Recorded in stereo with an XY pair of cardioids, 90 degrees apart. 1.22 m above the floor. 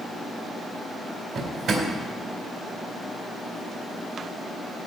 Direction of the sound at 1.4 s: 70° right.